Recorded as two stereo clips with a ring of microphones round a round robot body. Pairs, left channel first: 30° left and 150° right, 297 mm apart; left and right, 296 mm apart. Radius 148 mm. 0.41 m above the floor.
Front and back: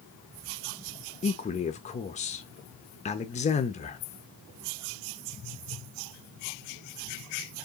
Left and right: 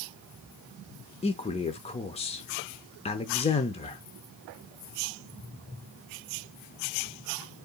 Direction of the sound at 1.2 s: 55° left.